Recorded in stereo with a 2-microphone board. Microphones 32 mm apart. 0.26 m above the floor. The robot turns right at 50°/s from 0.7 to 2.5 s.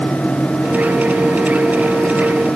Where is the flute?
I don't hear a flute.